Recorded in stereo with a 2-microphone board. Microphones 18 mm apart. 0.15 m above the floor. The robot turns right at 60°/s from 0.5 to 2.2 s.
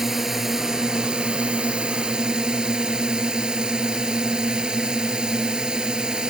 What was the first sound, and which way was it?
A drone, 155° right.